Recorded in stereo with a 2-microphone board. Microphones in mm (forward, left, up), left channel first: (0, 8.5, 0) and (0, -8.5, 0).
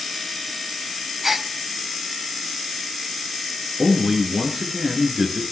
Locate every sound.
1.2 s a gasp: 15° right (ahead or behind), 0.9 m
3.8 s a man speaking: 40° right (ahead or behind), 4.5 m